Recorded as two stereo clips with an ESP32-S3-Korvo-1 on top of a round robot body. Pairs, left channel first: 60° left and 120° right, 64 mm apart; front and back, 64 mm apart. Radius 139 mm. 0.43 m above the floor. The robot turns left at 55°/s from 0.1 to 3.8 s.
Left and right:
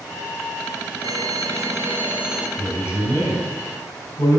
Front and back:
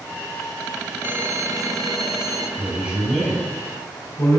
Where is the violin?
130° right, 1.1 m; by 2.5 s 155° left, 1.1 m.